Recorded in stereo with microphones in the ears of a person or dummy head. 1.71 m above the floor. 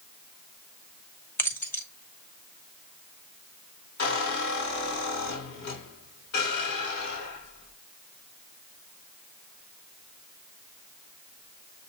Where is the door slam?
I don't hear a door slam.